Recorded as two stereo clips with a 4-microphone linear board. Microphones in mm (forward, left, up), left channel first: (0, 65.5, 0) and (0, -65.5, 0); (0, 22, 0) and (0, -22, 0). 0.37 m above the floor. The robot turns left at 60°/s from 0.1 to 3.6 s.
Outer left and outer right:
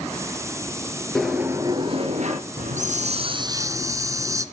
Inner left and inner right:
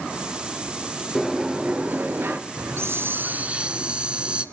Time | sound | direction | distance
1.1 | a sliding door | 5° left | 2.5 m
2.6 | a hiss | 95° right | 1.2 m